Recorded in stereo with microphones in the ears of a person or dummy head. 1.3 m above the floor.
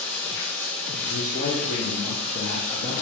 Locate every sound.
0.0 s running water: 10° left (ahead or behind), 1.1 m
1.0 s a man speaking: 40° left (ahead or behind), 1.0 m